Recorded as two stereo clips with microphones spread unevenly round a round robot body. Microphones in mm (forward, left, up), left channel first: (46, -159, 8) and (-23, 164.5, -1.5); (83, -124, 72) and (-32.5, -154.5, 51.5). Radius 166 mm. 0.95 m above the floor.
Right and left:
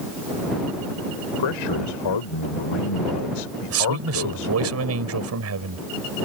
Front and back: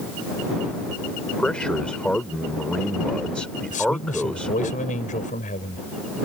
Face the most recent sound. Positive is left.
turn(degrees=55)